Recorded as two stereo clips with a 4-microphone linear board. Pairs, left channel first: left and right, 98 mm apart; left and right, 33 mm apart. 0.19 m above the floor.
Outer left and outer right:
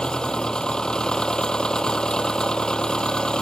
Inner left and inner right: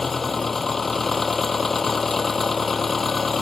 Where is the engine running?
10° left (ahead or behind).